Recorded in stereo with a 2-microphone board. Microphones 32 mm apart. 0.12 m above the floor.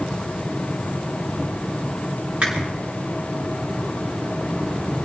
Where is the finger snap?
45° right (ahead or behind), 8.5 m.